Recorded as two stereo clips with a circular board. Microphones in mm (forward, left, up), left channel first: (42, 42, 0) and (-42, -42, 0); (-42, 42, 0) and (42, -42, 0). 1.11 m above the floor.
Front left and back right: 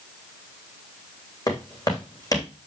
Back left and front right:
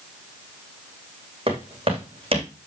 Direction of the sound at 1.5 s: 10° right.